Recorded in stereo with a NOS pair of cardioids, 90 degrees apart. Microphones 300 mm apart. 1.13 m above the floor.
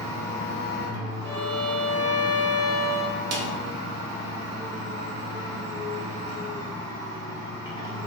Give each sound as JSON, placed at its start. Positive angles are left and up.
{"t": 0.0, "sound": "a machine running", "azimuth_deg": 15, "distance_m": 1.2}
{"t": 1.2, "sound": "a violin", "azimuth_deg": -10, "distance_m": 0.9}
{"t": 3.3, "sound": "a snare drum", "azimuth_deg": -55, "distance_m": 0.7}